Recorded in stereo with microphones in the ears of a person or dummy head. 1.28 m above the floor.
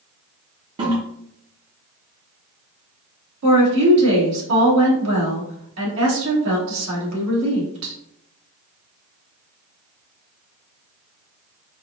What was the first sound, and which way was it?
A toilet flushing, 30° right (ahead or behind).